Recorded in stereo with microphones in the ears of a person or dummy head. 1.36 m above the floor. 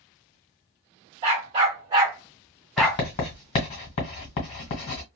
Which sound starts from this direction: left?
Writing, at 2.8 s.